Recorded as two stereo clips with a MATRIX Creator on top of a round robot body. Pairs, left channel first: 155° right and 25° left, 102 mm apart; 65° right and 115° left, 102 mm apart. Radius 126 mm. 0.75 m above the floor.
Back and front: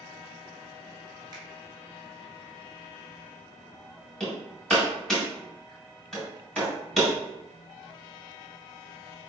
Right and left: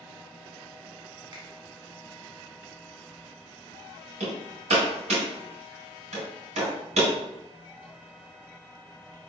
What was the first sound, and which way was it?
A finger snap, 70° left.